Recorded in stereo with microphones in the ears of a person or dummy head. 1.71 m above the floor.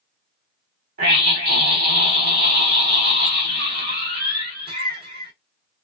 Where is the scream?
60° right (ahead or behind), 1.2 m.